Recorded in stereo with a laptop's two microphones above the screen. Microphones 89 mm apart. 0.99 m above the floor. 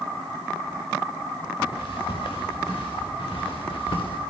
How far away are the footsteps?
About 6 m.